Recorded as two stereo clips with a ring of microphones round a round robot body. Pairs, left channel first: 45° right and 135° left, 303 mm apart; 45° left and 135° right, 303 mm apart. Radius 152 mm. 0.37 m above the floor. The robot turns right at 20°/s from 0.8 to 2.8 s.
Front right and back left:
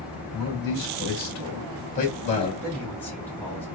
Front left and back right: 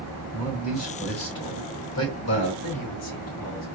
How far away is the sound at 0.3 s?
About 2.5 m.